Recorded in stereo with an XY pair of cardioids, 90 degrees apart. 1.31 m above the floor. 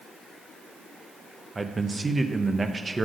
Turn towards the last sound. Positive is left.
turn(degrees=-25)